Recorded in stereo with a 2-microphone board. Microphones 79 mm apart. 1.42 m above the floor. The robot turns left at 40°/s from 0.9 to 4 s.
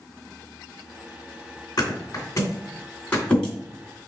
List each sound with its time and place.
1.8 s a thud: 55° left (ahead or behind), 2 m; by 3.5 s 5° left (ahead or behind), 2 m